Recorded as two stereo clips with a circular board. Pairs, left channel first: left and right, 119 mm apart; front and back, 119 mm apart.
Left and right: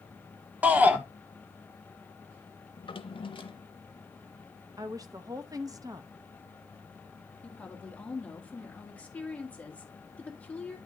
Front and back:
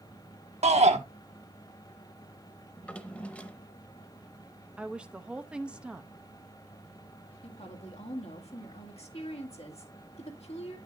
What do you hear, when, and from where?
0.6 s a shout: 165° right, 1.4 m
2.8 s a drawer: 75° left, 0.7 m
4.8 s a woman speaking: 105° right, 0.7 m
7.4 s a woman speaking: 15° left, 1.9 m